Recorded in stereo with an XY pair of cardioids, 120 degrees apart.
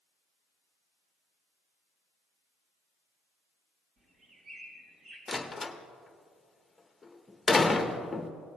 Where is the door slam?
15° left, 0.9 m.